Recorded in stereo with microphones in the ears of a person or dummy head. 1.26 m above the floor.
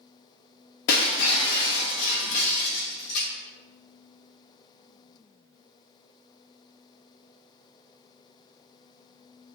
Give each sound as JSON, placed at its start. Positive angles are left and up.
{"t": 0.9, "sound": "breaking glass", "side_deg": 60, "distance_m": 0.8}